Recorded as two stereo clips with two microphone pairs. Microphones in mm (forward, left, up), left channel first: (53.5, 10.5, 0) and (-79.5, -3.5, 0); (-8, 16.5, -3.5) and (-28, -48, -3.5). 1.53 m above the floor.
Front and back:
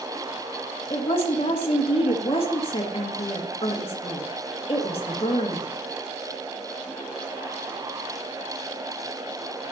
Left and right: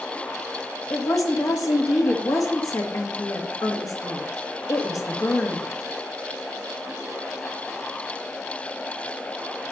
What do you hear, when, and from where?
0.9 s a woman speaking: 50° left, 2.0 m